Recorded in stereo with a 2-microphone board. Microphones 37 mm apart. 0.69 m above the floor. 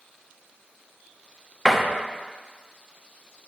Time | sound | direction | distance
1.6 | a door slam | 10° right (ahead or behind) | 0.8 m